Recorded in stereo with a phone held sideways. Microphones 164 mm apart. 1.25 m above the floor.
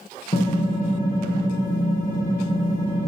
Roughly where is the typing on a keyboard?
Left.